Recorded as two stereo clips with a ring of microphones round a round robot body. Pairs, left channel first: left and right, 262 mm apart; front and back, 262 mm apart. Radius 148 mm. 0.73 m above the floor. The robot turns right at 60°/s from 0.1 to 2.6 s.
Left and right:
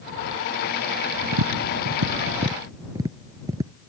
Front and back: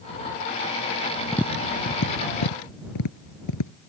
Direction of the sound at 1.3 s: 90° right.